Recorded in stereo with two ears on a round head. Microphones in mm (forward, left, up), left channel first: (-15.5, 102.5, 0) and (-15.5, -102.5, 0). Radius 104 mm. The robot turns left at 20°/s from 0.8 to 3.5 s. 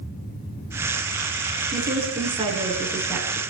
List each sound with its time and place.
1.7 s a woman speaking: 145° right, 8 m; by 3.4 s straight behind, 8 m